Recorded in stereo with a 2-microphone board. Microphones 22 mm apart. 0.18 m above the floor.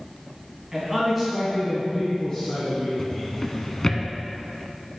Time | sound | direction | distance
0.7 | a man speaking | 20° right (ahead or behind) | 1.7 m
3.0 | a drawer | 30° left (ahead or behind) | 0.6 m